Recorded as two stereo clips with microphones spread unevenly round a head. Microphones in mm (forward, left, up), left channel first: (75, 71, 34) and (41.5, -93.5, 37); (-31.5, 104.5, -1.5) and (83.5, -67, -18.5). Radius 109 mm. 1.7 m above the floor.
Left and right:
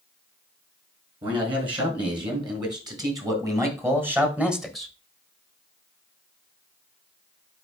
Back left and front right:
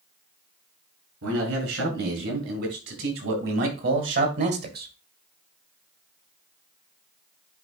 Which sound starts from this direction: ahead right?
A man speaking, at 1.2 s.